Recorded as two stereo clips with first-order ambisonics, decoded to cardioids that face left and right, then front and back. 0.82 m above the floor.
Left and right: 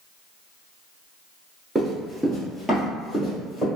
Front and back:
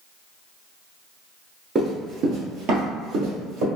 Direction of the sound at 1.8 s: 150° right.